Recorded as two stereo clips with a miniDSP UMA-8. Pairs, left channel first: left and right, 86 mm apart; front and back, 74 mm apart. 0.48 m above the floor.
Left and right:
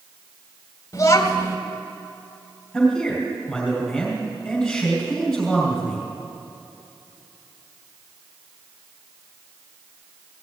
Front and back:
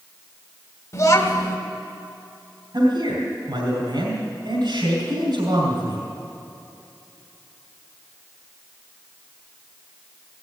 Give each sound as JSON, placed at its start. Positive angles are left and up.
{"t": 0.9, "sound": "a child speaking", "azimuth_deg": 40, "distance_m": 1.6}
{"t": 2.7, "sound": "a man speaking", "azimuth_deg": 170, "distance_m": 3.0}